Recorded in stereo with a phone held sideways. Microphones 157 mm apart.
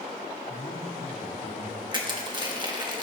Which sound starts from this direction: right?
Crushing, at 1.9 s.